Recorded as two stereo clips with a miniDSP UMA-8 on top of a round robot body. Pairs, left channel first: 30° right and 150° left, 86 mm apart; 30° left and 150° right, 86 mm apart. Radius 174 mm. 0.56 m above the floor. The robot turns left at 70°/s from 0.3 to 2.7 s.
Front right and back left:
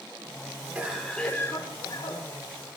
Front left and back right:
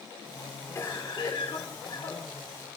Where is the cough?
85° left, 3.5 m; by 2.8 s 50° right, 3.5 m.